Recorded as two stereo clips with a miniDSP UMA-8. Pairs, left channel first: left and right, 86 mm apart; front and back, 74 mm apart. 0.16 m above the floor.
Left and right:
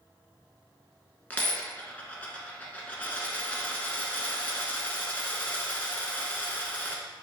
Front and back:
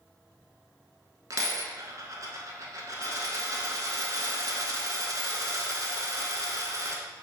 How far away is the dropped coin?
About 0.6 m.